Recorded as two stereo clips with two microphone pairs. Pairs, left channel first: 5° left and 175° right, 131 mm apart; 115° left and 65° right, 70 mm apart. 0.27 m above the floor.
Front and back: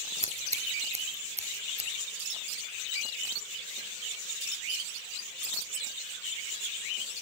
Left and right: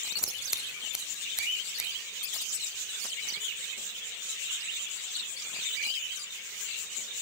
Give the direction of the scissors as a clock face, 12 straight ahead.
5 o'clock.